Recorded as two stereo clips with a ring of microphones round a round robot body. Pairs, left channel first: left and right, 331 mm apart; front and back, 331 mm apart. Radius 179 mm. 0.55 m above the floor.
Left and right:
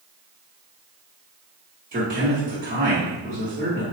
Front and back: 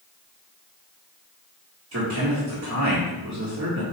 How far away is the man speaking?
About 1.5 m.